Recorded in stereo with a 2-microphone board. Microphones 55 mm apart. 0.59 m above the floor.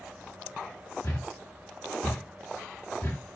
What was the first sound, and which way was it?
A thud, 45° left (ahead or behind).